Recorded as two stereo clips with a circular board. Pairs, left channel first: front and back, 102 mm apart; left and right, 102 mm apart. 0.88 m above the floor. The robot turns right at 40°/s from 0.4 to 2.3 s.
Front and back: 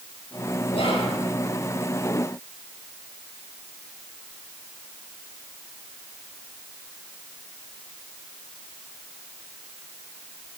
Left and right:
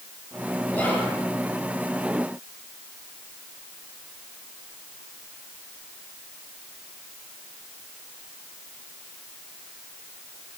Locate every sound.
0.7 s whispering: 15° left, 2.5 m; by 1.1 s 30° left, 2.5 m